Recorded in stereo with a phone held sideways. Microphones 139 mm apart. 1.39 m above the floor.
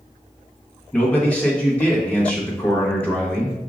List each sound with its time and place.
0.9 s a man speaking: 10° left (ahead or behind), 1.1 m